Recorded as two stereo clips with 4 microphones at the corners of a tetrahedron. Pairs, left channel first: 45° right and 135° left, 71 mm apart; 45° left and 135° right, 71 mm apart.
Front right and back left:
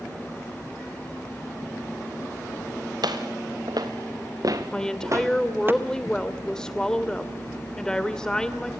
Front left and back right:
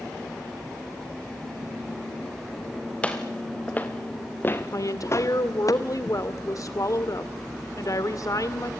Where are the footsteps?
120° left, 3 m; by 5.7 s 75° left, 1.3 m.